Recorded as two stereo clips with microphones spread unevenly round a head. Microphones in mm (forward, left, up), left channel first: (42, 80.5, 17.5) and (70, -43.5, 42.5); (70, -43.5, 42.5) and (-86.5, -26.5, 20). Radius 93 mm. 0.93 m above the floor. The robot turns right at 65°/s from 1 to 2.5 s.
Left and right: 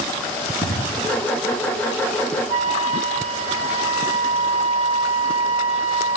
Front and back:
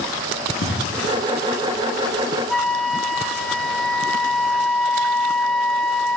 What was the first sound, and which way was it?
An explosion, 25° left.